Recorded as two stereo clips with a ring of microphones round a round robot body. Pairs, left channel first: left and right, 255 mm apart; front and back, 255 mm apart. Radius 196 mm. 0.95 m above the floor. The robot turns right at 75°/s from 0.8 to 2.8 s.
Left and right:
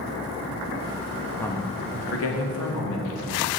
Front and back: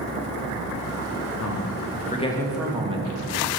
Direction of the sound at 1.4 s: 5° left.